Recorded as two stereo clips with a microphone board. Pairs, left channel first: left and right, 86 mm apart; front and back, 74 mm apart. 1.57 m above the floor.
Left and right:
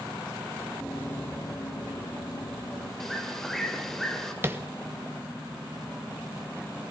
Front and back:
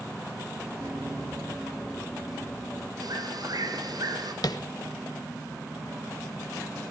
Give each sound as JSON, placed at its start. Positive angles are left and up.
{"t": 0.8, "sound": "running footsteps", "azimuth_deg": 155, "distance_m": 1.9}
{"t": 3.0, "sound": "a bird", "azimuth_deg": 175, "distance_m": 2.5}
{"t": 4.4, "sound": "tapping", "azimuth_deg": -30, "distance_m": 1.3}